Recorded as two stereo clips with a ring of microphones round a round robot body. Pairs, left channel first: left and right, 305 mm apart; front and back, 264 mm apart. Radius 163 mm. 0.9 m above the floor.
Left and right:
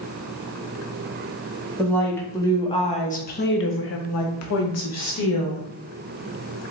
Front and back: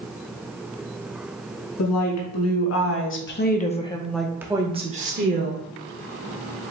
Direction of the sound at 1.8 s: 5° left.